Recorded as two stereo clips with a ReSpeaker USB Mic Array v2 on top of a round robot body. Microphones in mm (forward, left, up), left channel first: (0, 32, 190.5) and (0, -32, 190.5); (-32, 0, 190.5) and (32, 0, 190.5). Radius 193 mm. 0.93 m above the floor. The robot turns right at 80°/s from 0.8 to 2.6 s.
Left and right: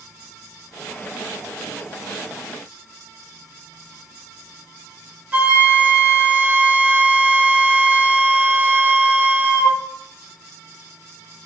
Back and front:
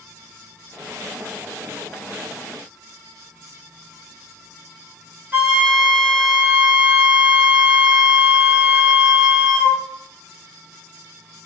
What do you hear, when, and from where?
5.3 s a flute: 35° right, 0.9 m